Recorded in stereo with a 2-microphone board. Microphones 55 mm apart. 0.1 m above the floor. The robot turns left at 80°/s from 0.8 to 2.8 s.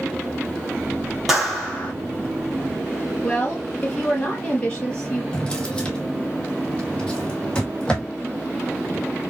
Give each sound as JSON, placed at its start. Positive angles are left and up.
{"t": 1.3, "sound": "a clap", "azimuth_deg": -170, "distance_m": 1.8}
{"t": 3.2, "sound": "a woman speaking", "side_deg": 20, "distance_m": 2.5}
{"t": 5.3, "sound": "a drawer", "side_deg": 15, "distance_m": 1.3}